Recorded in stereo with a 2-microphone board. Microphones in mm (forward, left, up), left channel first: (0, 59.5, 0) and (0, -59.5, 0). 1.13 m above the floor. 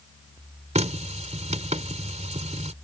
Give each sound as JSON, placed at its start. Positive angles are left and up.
{"t": 0.8, "sound": "a running tap", "side_deg": -75}